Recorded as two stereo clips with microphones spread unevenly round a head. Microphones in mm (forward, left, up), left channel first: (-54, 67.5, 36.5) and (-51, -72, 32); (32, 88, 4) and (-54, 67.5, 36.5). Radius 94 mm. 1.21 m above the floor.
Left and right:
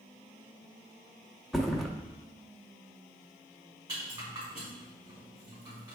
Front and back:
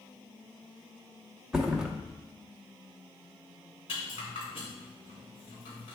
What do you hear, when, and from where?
1.5 s a thud: 175° left, 0.7 m
3.9 s a rattle: 20° right, 3 m